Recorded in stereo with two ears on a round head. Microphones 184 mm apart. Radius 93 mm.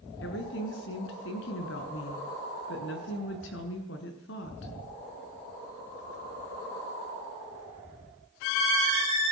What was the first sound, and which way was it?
A woman speaking, 60° left (ahead or behind).